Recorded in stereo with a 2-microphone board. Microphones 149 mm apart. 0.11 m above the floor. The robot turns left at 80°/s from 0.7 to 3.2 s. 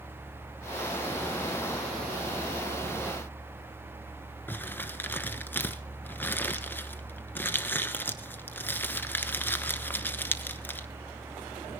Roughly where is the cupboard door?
I don't hear a cupboard door.